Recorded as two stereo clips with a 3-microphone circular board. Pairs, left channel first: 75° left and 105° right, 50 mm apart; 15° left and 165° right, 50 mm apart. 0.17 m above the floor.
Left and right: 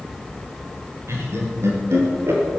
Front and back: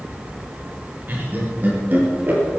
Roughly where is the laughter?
Behind right.